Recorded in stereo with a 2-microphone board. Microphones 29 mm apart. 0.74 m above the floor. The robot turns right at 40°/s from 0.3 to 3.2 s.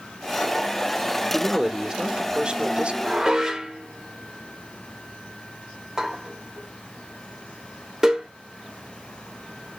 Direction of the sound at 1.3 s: 175° right.